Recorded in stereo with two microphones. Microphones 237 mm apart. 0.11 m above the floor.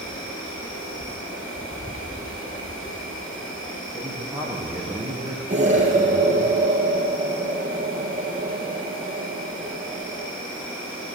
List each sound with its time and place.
0.0 s an insect: 60° left (ahead or behind), 5.5 m
3.9 s a man speaking: 10° right (ahead or behind), 4 m
5.5 s an explosion: 30° right (ahead or behind), 3 m